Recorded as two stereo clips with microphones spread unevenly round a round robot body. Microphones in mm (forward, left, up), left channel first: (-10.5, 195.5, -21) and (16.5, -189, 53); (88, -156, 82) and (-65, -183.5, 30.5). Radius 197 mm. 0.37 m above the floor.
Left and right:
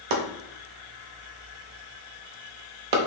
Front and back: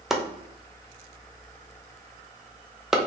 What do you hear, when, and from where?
0.1 s chopping: 95° right, 1.1 m